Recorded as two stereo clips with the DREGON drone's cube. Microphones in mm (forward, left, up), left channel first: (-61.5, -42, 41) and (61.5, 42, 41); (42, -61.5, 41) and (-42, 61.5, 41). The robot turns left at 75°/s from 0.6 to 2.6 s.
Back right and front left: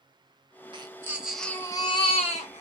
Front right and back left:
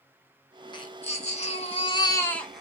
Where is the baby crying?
10° right, 0.7 m; by 2.6 s 150° right, 0.7 m.